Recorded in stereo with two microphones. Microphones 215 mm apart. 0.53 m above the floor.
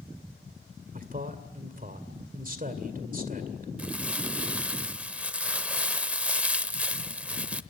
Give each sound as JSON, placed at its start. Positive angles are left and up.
{"t": 0.9, "sound": "a man speaking", "side_deg": -40, "distance_m": 2.0}
{"t": 3.8, "sound": "crumpling", "side_deg": -5, "distance_m": 0.7}